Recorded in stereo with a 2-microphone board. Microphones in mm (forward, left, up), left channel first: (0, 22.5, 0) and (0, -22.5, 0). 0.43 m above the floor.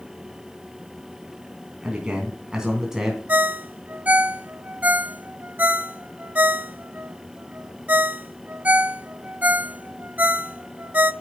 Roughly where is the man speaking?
Right.